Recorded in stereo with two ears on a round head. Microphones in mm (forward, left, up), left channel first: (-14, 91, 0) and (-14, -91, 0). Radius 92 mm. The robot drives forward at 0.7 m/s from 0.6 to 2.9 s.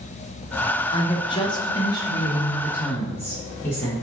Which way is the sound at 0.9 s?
25° left (ahead or behind).